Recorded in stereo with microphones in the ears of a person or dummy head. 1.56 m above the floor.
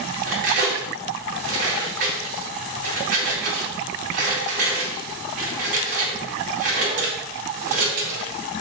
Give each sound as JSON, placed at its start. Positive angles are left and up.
{"t": 0.3, "sound": "cutlery clinking", "side_deg": -55, "distance_m": 2.5}